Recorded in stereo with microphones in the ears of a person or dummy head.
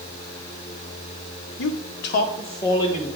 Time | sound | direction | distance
1.6 | a man speaking | 65° left (ahead or behind) | 0.8 m